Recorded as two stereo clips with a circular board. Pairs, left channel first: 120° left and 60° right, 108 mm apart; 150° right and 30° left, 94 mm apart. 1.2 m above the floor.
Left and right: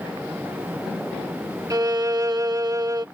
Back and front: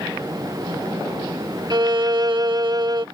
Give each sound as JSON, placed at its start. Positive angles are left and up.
{"t": 1.7, "sound": "a violin", "azimuth_deg": -5}